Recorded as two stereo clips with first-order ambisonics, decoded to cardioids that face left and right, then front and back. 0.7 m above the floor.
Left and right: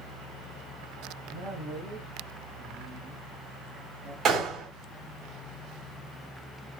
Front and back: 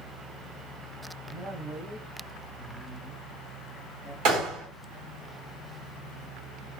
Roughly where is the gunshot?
Behind right.